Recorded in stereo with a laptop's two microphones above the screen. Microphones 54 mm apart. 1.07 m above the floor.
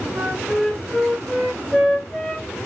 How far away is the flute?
About 1.2 m.